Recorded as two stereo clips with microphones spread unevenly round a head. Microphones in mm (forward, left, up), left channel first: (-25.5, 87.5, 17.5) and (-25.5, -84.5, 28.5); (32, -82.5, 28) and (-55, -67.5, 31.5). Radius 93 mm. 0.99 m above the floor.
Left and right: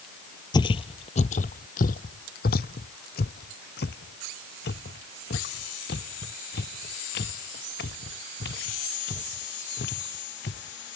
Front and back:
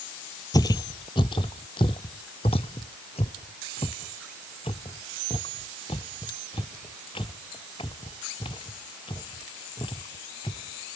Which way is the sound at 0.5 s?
30° left.